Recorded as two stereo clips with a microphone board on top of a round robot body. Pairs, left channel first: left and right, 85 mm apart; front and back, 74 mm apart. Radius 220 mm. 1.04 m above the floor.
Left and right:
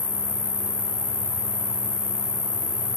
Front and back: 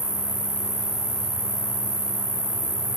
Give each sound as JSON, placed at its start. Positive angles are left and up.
{"t": 0.0, "sound": "an insect", "azimuth_deg": 75, "distance_m": 1.2}